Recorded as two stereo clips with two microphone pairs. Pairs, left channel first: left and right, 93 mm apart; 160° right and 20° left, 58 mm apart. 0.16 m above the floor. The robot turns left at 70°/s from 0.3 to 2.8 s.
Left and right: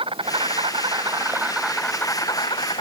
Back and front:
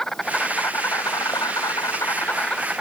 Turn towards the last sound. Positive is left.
turn(degrees=105)